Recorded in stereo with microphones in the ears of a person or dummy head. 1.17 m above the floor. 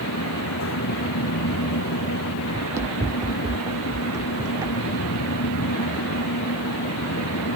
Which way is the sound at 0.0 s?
80° left.